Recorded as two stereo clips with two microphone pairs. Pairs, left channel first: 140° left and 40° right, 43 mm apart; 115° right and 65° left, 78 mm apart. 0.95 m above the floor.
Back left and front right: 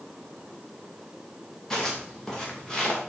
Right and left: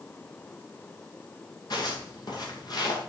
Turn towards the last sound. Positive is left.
turn(degrees=-145)